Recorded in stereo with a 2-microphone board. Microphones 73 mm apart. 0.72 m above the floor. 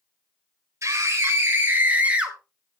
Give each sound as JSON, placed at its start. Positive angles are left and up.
{"t": 0.8, "sound": "a scream", "side_deg": -45, "distance_m": 3.0}